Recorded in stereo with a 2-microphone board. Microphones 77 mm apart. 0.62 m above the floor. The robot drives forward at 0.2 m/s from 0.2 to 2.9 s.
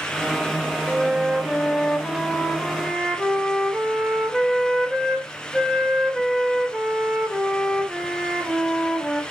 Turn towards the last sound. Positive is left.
turn(degrees=-5)  # may be behind; listen again after turning